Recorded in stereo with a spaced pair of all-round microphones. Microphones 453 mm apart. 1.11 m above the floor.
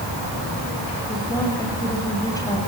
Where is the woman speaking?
5° left (ahead or behind), 6.5 m.